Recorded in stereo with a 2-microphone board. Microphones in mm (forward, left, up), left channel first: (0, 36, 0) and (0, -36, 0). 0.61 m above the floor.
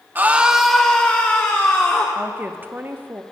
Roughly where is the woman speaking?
Right.